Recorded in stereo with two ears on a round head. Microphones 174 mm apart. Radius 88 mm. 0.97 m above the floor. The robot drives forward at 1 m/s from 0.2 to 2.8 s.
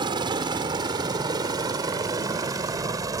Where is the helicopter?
25° right (ahead or behind); by 3.2 s 20° right (ahead or behind).